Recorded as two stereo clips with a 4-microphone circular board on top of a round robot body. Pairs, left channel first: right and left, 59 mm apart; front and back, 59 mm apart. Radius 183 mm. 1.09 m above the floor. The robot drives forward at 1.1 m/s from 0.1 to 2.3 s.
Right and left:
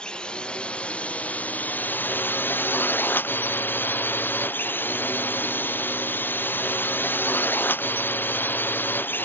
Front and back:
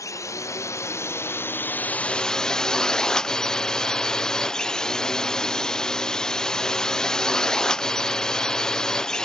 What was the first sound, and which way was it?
A drone, 20° right.